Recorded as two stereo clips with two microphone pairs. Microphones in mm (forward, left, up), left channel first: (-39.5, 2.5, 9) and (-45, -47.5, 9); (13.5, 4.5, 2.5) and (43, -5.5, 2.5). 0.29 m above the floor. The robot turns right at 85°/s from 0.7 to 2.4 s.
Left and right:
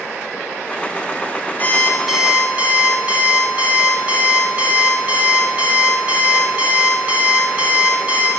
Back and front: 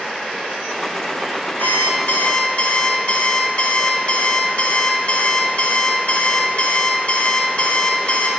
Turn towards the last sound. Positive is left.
turn(degrees=-155)